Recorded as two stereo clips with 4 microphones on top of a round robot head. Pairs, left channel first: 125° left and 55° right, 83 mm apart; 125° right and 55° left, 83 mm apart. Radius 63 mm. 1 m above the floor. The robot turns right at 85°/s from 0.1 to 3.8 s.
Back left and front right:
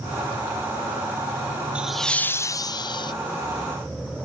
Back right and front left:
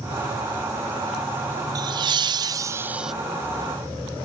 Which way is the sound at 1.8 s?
20° left.